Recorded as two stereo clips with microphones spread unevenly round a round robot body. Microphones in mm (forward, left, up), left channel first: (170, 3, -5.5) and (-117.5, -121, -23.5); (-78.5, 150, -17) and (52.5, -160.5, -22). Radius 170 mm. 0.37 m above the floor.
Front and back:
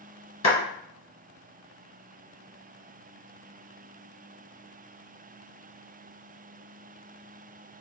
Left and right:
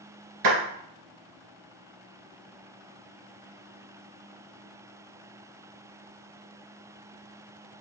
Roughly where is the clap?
Ahead right.